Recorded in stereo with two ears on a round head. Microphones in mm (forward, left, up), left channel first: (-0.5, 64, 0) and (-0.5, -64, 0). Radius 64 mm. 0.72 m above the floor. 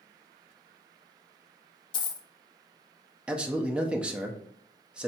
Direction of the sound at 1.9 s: 35° left (ahead or behind).